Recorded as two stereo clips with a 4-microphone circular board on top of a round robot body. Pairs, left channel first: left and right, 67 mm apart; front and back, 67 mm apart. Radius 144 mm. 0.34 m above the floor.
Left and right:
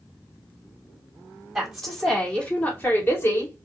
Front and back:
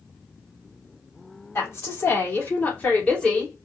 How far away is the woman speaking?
About 2.0 m.